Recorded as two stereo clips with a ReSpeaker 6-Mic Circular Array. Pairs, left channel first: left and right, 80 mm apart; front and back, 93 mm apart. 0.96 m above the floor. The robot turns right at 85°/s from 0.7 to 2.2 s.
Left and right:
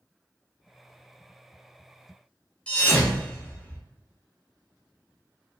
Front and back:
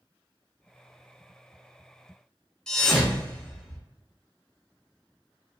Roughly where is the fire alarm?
No fire alarm in this recording.